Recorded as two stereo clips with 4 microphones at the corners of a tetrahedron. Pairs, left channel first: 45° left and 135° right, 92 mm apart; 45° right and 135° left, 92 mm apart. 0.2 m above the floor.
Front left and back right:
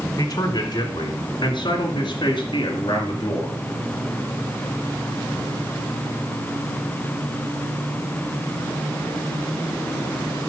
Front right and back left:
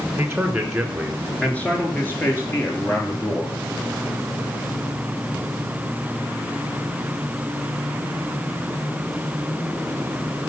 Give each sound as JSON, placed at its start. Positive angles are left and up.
{"t": 0.2, "sound": "a man speaking", "azimuth_deg": 65, "distance_m": 1.8}